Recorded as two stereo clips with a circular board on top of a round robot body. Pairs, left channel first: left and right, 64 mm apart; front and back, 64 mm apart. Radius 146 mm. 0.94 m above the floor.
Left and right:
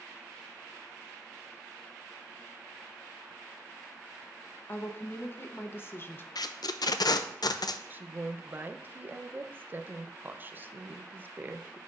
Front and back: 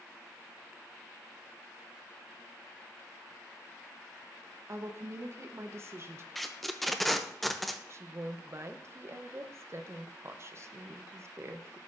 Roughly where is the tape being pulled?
Left.